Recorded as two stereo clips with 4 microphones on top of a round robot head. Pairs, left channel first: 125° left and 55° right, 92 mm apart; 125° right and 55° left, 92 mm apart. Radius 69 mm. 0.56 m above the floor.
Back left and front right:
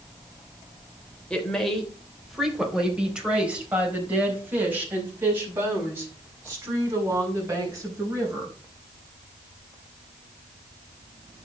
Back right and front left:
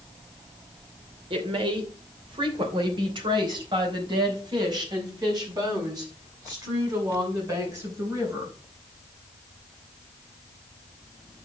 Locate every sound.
1.3 s a woman speaking: 45° left, 3 m; by 8.6 s straight ahead, 7.5 m